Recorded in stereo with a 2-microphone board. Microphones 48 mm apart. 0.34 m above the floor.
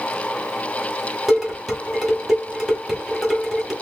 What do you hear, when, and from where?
1.3 s dishes clattering: 5° right (ahead or behind), 1.6 m